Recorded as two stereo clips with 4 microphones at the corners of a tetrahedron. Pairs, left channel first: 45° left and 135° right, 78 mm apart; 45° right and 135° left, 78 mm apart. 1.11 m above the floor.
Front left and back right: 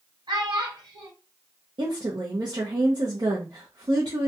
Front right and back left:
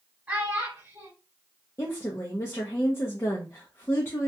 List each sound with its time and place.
0.3 s a child speaking: 155° right, 1.4 m
1.8 s a woman speaking: 105° right, 0.5 m